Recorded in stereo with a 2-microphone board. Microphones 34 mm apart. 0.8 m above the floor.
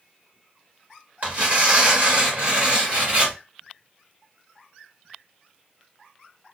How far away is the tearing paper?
About 1.3 m.